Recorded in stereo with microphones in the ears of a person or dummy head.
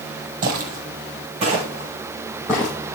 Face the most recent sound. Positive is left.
turn(degrees=10)  # may be behind; listen again after turning